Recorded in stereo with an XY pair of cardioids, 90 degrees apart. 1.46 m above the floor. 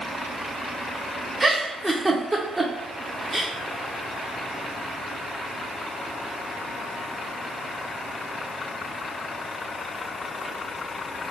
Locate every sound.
1.4 s a giggle: 15° right, 0.8 m